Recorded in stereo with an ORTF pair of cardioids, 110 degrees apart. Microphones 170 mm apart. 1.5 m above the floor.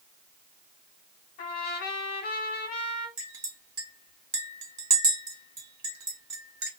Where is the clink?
20° right, 1.4 m.